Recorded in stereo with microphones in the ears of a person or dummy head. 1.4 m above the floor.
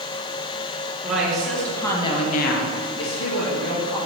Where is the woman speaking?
5° right (ahead or behind), 2.5 m; by 4.0 s 50° left (ahead or behind), 2 m.